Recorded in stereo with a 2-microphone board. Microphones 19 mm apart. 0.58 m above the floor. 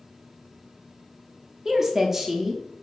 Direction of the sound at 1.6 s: 20° right (ahead or behind).